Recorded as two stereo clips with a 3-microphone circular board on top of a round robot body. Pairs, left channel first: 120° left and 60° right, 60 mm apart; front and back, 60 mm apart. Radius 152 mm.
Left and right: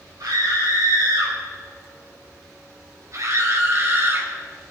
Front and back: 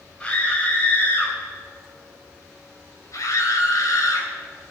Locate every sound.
0.2 s a scream: 70° right, 4 m; by 4.3 s 10° right, 4 m